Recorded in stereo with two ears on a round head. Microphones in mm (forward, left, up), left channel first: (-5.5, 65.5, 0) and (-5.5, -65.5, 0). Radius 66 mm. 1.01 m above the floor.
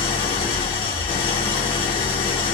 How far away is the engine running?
About 1.2 m.